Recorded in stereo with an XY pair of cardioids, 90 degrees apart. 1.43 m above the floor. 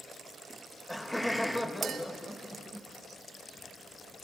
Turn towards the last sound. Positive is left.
turn(degrees=-65)